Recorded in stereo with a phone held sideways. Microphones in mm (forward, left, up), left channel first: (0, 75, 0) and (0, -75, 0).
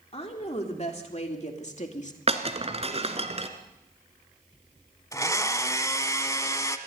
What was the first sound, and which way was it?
A woman speaking, 45° left (ahead or behind).